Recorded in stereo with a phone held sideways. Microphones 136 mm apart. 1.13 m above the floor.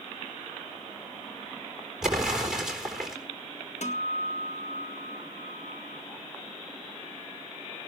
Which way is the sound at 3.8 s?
60° left (ahead or behind).